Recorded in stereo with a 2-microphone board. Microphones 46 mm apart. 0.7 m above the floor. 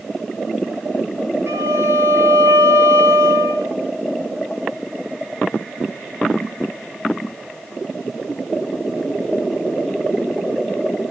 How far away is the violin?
About 2.5 m.